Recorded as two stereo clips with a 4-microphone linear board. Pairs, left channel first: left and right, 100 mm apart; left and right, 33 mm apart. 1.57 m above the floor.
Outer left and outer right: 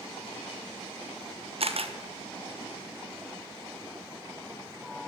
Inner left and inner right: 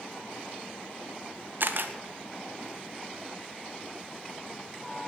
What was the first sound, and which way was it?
A camera shutter, 65° right (ahead or behind).